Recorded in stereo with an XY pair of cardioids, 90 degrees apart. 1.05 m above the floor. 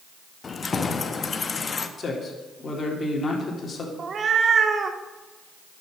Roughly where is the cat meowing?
Ahead right.